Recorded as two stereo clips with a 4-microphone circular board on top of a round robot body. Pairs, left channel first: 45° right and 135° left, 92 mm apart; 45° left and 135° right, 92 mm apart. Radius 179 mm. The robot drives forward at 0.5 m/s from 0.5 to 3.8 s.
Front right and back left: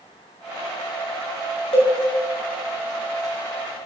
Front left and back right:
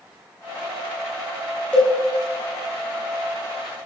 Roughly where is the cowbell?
Ahead right.